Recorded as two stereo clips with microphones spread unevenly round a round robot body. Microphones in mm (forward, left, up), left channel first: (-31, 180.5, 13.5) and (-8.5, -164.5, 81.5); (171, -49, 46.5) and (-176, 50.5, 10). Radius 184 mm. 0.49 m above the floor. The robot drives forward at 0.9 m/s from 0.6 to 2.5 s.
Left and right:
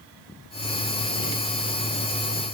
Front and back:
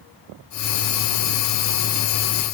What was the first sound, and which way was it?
Only background noise.